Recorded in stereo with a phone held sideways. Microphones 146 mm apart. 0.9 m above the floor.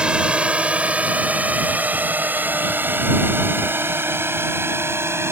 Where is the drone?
5° right (ahead or behind); by 5.3 s 15° right (ahead or behind).